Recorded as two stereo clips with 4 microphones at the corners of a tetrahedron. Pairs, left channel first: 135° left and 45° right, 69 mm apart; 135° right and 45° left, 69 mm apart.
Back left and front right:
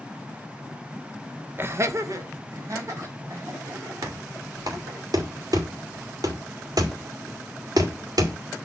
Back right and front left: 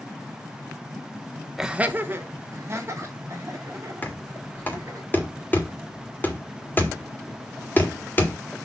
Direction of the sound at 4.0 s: 75° right.